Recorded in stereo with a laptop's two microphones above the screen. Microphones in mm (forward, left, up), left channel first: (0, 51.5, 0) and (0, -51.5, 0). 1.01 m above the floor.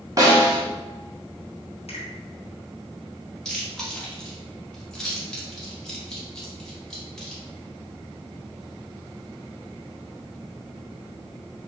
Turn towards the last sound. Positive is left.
turn(degrees=5)  # may be behind; listen again after turning